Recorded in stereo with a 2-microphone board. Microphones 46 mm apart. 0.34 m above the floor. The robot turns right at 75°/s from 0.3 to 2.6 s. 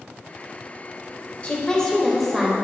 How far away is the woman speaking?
About 1.1 m.